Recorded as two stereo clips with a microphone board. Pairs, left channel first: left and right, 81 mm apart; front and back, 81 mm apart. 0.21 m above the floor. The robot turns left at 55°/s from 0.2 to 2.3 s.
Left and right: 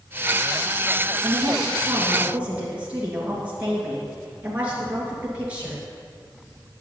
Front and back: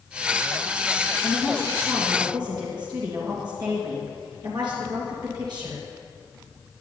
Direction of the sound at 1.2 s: 105° right.